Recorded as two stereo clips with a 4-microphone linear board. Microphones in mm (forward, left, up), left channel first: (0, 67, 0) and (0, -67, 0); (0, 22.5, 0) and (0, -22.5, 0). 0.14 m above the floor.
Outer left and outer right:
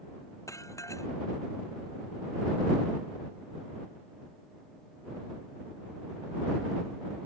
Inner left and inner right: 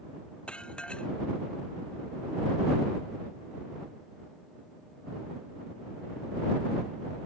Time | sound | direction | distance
0.5 | dishes clattering | 20° left (ahead or behind) | ?